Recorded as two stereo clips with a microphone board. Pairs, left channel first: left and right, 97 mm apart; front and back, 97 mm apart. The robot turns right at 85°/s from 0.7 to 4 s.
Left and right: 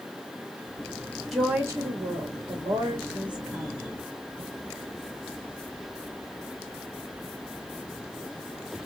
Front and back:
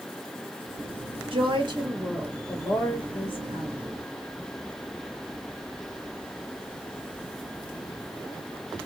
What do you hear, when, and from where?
1.3 s a woman speaking: straight behind, 1.1 m; by 3.8 s 25° left, 1.1 m